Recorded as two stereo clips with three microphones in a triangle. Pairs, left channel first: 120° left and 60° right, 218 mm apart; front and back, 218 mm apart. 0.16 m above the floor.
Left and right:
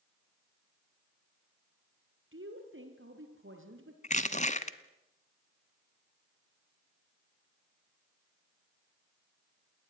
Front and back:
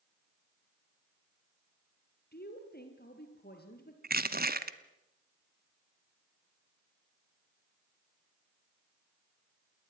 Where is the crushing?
160° left, 1.1 m.